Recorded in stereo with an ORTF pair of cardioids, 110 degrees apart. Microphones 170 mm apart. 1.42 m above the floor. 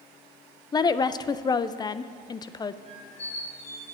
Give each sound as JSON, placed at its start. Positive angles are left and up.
{"t": 0.7, "sound": "a woman speaking", "azimuth_deg": 25, "distance_m": 0.5}
{"t": 2.9, "sound": "a squeak", "azimuth_deg": 40, "distance_m": 3.0}